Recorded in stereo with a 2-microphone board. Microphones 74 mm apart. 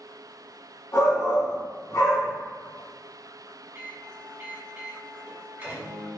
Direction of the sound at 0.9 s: 45° left (ahead or behind).